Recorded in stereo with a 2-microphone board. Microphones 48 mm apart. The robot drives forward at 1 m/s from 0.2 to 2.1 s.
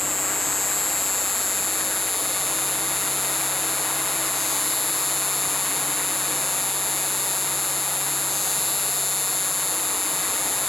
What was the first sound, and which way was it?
An insect, centre (ahead or behind).